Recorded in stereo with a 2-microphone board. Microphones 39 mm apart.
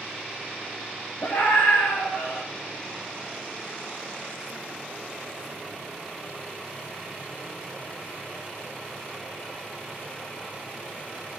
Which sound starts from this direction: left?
A scream, at 1.2 s.